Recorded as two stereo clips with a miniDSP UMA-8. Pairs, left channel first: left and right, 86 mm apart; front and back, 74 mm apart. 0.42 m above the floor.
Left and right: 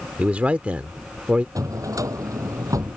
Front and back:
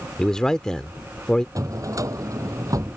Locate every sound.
0.2 s a man speaking: 60° right
1.6 s a drawer: 140° right